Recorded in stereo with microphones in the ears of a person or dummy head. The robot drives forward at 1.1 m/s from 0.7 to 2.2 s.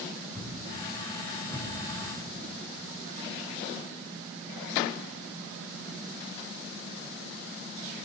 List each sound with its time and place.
0.3 s a thud: 5° left (ahead or behind), 2.5 m